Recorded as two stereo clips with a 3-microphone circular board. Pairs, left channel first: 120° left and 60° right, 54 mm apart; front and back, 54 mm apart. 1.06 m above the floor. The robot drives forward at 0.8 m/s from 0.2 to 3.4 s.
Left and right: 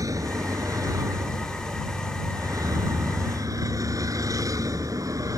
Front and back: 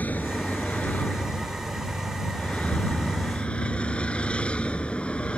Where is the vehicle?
60° right; by 5.4 s 70° right.